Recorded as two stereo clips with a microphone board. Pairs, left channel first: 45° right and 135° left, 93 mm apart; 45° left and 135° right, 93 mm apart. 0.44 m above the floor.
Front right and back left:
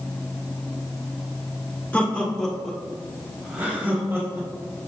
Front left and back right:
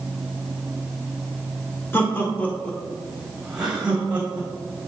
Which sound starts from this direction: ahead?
Laughter, at 1.9 s.